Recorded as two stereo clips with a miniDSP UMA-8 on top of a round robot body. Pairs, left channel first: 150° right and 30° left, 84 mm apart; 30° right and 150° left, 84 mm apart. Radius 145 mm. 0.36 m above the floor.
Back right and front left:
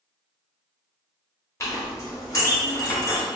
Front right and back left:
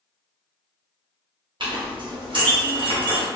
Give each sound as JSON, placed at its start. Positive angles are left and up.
{"t": 1.6, "sound": "a clink", "azimuth_deg": 160, "distance_m": 1.2}